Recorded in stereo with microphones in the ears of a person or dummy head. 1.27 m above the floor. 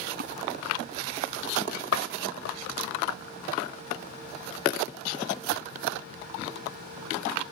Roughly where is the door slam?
Left.